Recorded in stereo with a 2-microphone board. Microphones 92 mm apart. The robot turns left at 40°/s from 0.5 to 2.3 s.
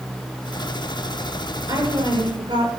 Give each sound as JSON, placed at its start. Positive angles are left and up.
{"t": 1.7, "sound": "a woman speaking", "side_deg": -40, "distance_m": 6.5}